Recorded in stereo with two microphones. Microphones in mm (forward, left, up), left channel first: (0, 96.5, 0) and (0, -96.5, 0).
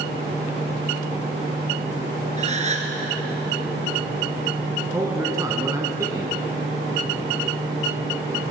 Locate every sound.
2.4 s a gasp: 35° right (ahead or behind), 1.3 m
4.9 s a man speaking: 15° right (ahead or behind), 1.4 m